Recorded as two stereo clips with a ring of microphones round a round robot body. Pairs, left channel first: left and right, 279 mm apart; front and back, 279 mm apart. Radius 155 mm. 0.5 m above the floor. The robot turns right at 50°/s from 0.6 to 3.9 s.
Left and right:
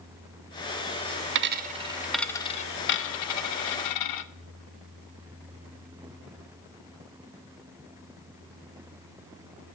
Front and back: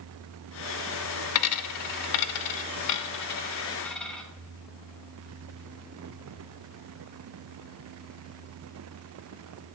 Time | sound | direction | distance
1.4 | a dropped coin | 40° right | 0.5 m